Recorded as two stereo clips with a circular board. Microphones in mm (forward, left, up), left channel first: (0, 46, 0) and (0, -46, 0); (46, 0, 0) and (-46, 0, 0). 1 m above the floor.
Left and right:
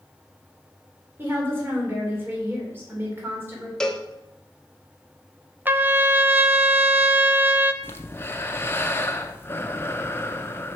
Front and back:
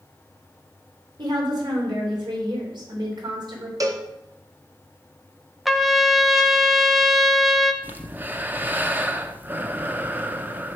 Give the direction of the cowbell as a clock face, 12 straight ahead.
6 o'clock.